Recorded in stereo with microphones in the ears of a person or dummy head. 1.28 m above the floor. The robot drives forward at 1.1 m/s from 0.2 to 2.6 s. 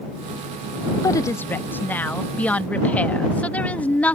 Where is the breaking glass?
No breaking glass in this recording.